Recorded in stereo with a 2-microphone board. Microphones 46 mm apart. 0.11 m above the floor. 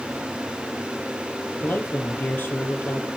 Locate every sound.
1.6 s a man speaking: 40° left (ahead or behind), 3 m